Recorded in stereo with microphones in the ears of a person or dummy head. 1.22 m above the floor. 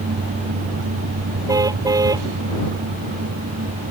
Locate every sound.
1.5 s a car horn: 15° right (ahead or behind)